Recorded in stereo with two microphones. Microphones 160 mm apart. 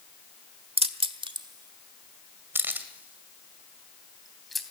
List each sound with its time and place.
0.8 s keys jangling: 40° right (ahead or behind), 1.3 m; by 4.6 s centre (ahead or behind), 2.5 m